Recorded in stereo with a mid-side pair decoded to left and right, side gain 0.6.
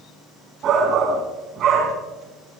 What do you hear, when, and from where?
0.6 s a shout: 50° right, 3 m